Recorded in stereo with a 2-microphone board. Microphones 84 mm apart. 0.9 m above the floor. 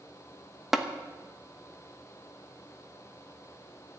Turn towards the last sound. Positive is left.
turn(degrees=-5)  # may be behind; listen again after turning